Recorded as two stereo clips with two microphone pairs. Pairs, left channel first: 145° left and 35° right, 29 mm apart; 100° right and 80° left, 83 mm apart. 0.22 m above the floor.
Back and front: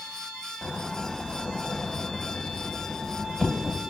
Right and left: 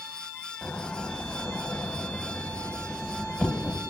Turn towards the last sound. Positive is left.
turn(degrees=-160)